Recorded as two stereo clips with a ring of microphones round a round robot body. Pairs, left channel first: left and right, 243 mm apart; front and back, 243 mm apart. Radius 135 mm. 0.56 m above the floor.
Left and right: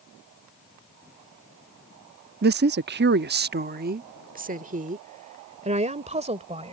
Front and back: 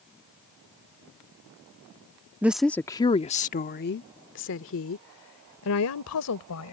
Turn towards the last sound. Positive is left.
turn(degrees=-25)